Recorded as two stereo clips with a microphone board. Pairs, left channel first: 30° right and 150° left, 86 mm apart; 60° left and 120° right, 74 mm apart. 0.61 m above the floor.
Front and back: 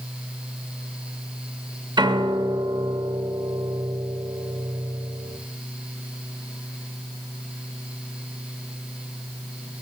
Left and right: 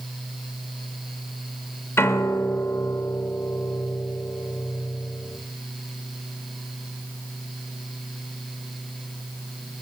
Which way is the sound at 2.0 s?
115° left.